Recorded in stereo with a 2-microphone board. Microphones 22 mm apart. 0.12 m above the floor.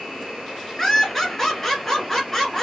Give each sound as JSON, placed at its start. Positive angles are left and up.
{"t": 0.8, "sound": "laughter", "side_deg": 15, "distance_m": 1.3}